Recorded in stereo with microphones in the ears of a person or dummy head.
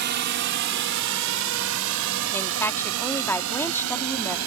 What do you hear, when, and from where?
0.0 s a drone: 50° right (ahead or behind); by 4.5 s 75° right (ahead or behind)
2.3 s a woman speaking: 15° left (ahead or behind)